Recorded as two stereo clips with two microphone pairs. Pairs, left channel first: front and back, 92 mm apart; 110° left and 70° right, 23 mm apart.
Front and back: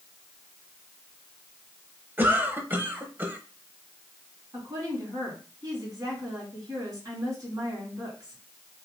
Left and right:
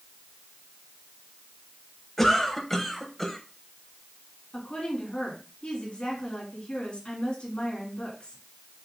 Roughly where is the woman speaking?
Behind left.